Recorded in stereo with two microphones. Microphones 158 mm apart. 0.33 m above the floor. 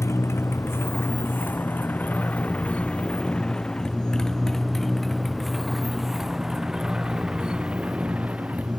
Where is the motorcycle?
15° left (ahead or behind); by 8.8 s 10° right (ahead or behind).